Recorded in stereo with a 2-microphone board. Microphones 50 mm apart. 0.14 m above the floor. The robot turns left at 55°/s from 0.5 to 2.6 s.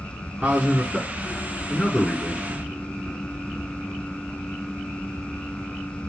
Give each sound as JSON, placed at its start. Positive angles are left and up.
{"t": 0.4, "sound": "a man speaking", "azimuth_deg": -130, "distance_m": 1.2}